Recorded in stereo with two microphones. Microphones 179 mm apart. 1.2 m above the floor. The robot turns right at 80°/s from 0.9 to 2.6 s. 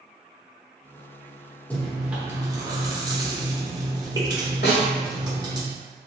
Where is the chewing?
10° left (ahead or behind), 0.9 m; by 5.6 s 20° right (ahead or behind), 0.9 m.